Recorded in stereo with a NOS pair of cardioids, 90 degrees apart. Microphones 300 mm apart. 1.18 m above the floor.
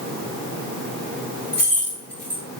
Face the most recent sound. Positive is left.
turn(degrees=5)